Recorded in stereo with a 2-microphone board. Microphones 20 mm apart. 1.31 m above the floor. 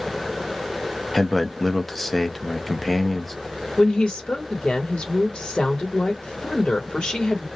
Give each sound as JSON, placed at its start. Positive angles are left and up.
{"t": 1.1, "sound": "a man speaking", "side_deg": 10, "distance_m": 0.7}
{"t": 3.8, "sound": "a woman speaking", "side_deg": 65, "distance_m": 1.2}